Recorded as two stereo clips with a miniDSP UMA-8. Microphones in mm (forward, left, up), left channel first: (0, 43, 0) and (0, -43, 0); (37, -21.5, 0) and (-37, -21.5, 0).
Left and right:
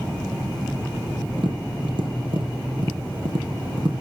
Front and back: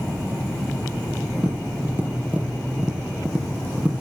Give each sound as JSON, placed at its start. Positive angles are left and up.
{"t": 1.4, "sound": "tapping", "azimuth_deg": -105, "distance_m": 5.5}